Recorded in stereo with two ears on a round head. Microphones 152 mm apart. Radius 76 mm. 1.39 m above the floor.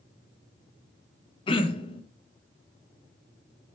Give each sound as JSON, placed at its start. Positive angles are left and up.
{"t": 1.5, "sound": "throat clearing", "side_deg": 30, "distance_m": 0.6}